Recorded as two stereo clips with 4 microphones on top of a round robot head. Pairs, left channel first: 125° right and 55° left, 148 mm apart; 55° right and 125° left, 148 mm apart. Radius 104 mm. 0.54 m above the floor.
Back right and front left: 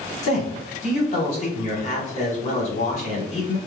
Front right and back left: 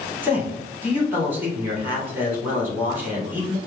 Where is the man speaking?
160° right, 1.8 m.